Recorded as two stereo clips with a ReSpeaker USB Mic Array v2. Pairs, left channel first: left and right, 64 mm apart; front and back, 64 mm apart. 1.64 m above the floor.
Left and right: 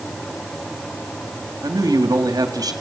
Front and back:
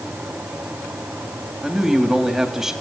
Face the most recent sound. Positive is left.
turn(degrees=-95)